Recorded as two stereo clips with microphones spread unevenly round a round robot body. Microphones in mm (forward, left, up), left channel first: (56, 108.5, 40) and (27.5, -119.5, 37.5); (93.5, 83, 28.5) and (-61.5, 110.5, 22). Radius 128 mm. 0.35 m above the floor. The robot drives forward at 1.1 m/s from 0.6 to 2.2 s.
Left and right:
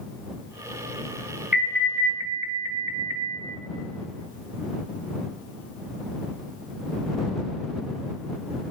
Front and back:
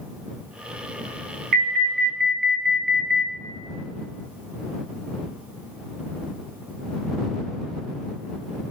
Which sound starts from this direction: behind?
An alarm, at 1.5 s.